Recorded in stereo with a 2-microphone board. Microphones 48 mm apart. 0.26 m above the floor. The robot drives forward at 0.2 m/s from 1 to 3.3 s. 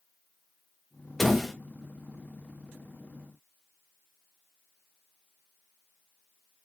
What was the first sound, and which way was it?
A door slam, 5° left (ahead or behind).